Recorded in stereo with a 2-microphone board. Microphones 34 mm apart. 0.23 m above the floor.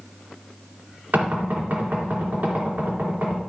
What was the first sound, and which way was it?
Knocking, 65° right (ahead or behind).